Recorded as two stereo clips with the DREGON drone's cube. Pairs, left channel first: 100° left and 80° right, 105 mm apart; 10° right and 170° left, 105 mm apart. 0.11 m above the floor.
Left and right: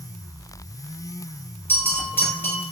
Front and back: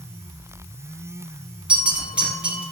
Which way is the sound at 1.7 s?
115° left.